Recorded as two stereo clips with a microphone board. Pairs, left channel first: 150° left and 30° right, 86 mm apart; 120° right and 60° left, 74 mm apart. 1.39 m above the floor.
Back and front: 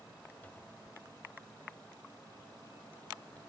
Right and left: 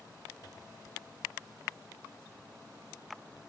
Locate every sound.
0.4 s a cupboard door: 140° right